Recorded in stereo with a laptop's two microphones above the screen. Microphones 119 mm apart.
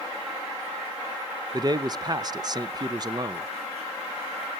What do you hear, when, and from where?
1.5 s a man speaking: 35° right (ahead or behind), 0.5 m